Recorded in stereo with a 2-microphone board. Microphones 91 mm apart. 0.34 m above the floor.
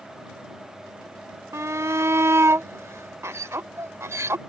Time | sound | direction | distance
1.5 | a shout | 30° right (ahead or behind) | ?